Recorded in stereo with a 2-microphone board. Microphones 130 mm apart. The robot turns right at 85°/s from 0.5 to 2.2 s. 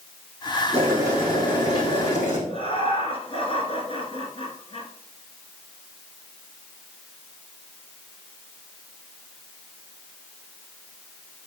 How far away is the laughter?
About 2 m.